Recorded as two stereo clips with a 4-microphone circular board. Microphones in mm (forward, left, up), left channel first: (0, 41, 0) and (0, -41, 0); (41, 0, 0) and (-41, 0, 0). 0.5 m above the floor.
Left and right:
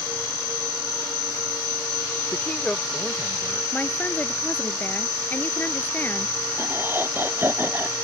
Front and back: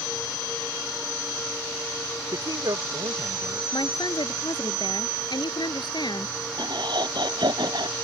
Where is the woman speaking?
25° left.